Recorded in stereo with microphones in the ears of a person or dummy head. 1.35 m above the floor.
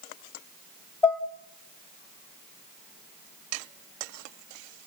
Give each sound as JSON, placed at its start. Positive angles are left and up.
{"t": 1.0, "sound": "dishes clattering", "side_deg": 10, "distance_m": 1.0}